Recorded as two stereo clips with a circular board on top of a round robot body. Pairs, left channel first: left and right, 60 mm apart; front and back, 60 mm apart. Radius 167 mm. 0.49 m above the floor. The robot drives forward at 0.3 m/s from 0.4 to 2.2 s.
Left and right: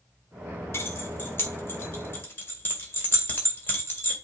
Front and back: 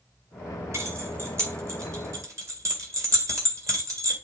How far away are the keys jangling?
About 1.7 m.